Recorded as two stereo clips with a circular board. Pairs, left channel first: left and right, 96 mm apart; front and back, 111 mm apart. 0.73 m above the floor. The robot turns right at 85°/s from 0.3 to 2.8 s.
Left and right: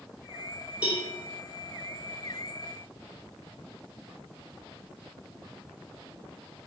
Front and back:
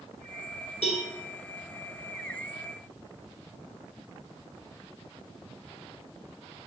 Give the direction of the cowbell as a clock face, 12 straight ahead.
12 o'clock.